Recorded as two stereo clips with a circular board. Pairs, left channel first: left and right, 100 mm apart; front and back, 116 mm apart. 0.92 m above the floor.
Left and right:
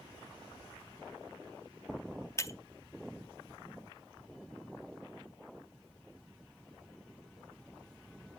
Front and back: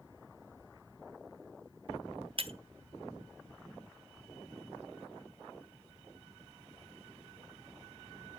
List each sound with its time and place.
2.4 s breaking glass: 145° left, 0.6 m